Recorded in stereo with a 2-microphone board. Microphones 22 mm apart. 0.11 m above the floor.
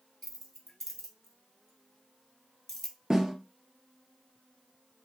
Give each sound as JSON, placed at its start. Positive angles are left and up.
{"t": 0.2, "sound": "keys jangling", "side_deg": 15, "distance_m": 1.1}
{"t": 3.1, "sound": "a snare drum", "side_deg": -20, "distance_m": 1.5}